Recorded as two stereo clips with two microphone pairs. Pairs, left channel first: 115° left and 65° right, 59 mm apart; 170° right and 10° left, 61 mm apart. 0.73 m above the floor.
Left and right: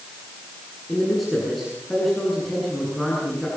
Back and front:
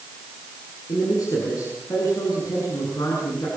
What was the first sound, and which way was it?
A man speaking, 155° right.